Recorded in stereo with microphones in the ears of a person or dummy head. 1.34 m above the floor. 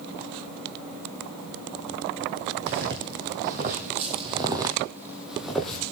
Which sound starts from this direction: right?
Footsteps, at 2.7 s.